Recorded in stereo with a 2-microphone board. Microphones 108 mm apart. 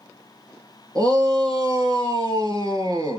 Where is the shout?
40° right (ahead or behind), 3.5 m.